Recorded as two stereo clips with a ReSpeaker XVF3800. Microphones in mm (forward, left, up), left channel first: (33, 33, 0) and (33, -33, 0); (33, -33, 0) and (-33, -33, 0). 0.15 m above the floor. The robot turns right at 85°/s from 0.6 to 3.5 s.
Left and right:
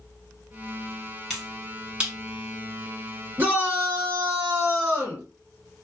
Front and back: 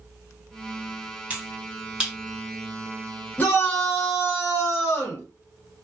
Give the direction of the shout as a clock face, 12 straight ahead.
2 o'clock.